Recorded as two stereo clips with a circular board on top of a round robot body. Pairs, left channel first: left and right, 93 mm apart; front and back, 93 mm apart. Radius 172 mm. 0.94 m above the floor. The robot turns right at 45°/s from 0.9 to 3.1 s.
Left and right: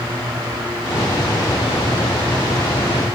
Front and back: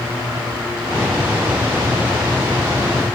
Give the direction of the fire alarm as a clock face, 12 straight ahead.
No fire alarm in this recording.